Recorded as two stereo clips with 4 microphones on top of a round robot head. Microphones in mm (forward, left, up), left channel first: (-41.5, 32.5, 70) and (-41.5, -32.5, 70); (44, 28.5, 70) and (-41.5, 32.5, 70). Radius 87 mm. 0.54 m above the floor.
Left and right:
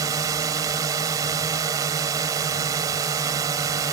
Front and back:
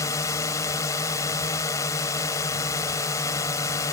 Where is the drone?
60° right.